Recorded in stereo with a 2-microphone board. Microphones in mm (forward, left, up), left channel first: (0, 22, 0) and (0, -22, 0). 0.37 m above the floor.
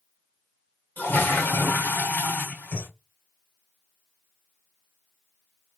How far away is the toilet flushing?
About 1.4 m.